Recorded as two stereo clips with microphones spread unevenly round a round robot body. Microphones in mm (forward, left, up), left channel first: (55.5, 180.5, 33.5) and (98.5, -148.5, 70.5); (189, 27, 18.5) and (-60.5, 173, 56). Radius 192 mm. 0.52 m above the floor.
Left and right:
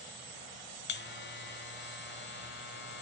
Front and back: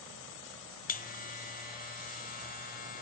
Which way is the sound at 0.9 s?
35° left.